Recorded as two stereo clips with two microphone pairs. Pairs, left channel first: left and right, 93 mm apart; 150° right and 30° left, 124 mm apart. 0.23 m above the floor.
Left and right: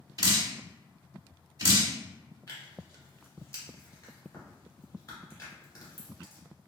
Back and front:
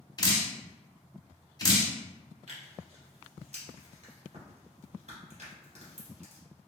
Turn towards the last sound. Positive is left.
turn(degrees=35)